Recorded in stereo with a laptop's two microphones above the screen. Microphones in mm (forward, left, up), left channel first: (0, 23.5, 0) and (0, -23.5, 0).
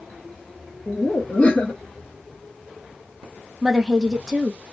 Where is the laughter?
35° left (ahead or behind), 0.7 m.